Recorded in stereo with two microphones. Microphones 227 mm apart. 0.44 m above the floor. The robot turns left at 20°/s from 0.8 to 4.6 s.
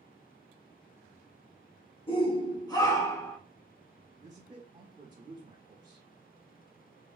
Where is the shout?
25° left (ahead or behind), 1.0 m; by 3.4 s 10° left (ahead or behind), 1.0 m.